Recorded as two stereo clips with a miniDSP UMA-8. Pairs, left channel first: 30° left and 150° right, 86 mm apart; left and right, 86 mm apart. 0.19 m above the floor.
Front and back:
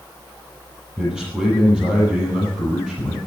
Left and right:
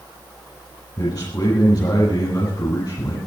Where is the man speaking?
130° left, 6.5 m.